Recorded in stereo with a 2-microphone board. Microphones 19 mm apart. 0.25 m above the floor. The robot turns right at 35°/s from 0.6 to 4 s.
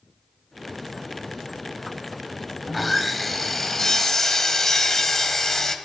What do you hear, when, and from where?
2.7 s sawing: centre (ahead or behind), 1.3 m; by 5.8 s 20° left (ahead or behind), 1.3 m